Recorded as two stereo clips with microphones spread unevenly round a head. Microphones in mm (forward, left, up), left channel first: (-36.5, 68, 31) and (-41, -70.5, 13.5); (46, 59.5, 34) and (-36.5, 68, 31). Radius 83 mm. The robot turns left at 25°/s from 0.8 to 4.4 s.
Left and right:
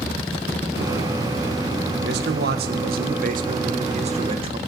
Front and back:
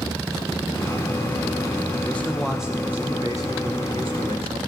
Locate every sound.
2.0 s a man speaking: 85° right, 1.7 m; by 4.6 s 145° right, 1.7 m